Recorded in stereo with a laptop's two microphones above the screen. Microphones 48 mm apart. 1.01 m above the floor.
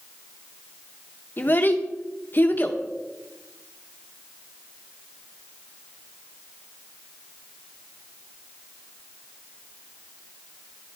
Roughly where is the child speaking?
Left.